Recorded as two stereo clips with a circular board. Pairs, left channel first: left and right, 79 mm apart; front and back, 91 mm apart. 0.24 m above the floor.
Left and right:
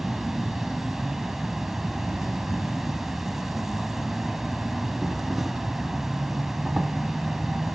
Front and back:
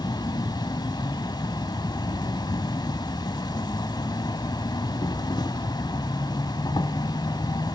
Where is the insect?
5° right, 0.8 m.